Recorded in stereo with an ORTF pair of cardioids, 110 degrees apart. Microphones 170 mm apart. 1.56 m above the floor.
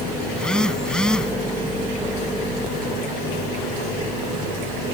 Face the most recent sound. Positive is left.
turn(degrees=5)